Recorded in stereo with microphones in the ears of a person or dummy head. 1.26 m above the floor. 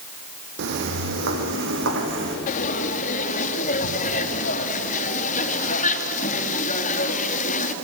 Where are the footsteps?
60° right (ahead or behind), 3 m; by 2.4 s 65° right (ahead or behind), 4 m.